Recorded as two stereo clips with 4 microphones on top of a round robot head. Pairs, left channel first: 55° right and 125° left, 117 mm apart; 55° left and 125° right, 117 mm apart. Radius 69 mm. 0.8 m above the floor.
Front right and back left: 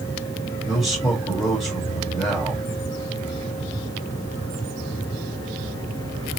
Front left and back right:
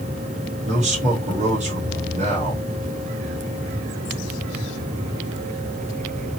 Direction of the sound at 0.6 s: 135° right.